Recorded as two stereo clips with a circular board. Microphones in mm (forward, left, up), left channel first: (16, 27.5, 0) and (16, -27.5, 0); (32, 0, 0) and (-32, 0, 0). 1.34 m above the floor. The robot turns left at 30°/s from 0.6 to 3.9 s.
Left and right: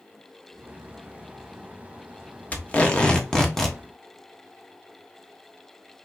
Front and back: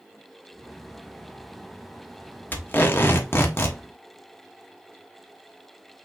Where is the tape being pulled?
40° left, 1.0 m; by 3.8 s 5° left, 1.0 m.